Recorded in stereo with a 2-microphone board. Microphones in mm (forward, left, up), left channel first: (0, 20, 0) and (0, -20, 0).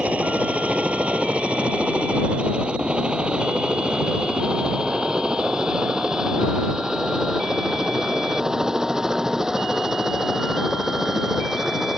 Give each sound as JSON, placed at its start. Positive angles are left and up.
{"t": 0.0, "sound": "a helicopter", "side_deg": -35}